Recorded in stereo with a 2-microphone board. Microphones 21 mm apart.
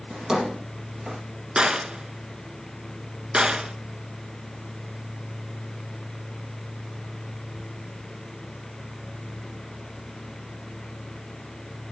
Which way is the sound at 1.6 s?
50° right (ahead or behind).